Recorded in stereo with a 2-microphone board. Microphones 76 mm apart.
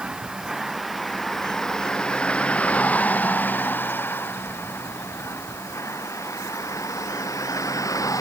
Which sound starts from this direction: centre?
A vehicle, at 0.0 s.